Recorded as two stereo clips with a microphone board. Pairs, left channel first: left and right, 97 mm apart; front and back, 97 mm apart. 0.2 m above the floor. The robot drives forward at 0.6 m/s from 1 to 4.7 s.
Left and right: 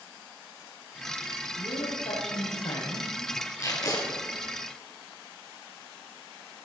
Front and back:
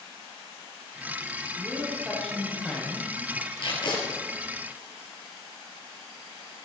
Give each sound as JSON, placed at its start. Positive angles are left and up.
{"t": 1.6, "sound": "a woman speaking", "azimuth_deg": 80, "distance_m": 7.0}
{"t": 3.6, "sound": "tape being pulled", "azimuth_deg": 35, "distance_m": 3.5}